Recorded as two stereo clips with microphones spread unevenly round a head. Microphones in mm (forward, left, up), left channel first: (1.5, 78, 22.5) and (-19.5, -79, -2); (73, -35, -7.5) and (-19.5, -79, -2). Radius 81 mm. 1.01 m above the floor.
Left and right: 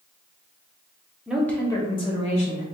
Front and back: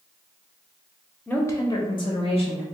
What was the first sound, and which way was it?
A woman speaking, 35° right.